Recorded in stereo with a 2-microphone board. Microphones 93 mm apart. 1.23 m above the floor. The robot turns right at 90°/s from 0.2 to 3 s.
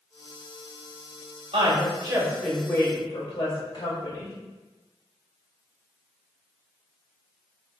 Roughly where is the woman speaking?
Right.